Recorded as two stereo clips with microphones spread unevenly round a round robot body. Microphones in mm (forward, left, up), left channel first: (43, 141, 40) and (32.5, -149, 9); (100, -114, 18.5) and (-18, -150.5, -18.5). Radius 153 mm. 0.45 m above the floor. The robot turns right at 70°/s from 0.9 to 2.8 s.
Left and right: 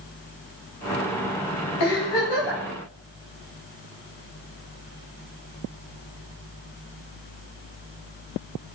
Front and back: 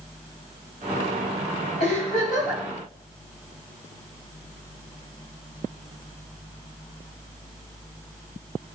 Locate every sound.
1.8 s a giggle: 60° left, 3.5 m; by 2.6 s 115° left, 3.5 m